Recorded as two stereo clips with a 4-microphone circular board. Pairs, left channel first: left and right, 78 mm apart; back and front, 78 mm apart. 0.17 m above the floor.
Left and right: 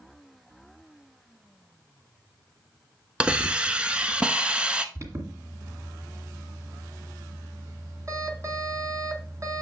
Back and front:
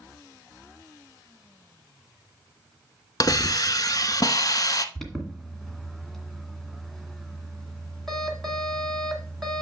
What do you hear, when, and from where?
3.2 s a hiss: 165° right, 0.8 m
5.0 s an alarm: 95° right, 1.8 m